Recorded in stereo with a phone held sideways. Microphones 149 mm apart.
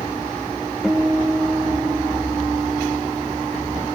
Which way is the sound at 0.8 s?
5° right (ahead or behind).